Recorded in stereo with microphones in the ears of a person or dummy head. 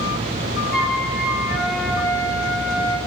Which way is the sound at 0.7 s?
Centre (ahead or behind).